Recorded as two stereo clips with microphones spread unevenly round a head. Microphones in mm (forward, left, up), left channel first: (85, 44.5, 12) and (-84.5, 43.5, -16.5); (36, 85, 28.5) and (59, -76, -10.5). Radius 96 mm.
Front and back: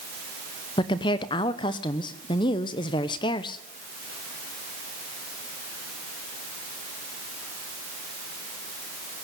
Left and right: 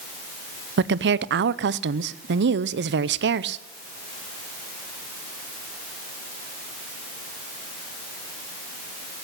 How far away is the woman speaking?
About 0.7 m.